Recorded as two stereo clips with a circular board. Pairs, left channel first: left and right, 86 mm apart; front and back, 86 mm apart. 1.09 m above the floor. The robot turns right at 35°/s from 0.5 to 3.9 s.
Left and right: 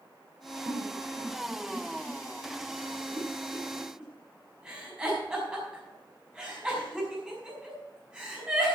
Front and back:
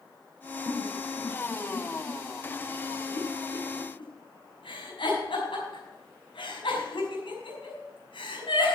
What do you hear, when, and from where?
0.7 s a giggle: 125° right, 6 m; by 8.8 s 10° right, 6 m